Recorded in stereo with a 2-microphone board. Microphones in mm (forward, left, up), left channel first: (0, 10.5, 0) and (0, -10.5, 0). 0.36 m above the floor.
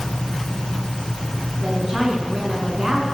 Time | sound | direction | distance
1.6 | a woman speaking | 25° right (ahead or behind) | 4 m